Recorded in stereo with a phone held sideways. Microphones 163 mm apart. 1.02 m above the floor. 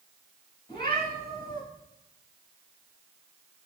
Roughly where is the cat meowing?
Left.